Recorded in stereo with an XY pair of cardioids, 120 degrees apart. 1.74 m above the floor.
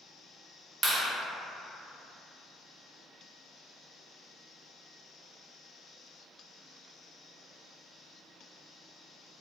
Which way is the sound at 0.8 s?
35° right.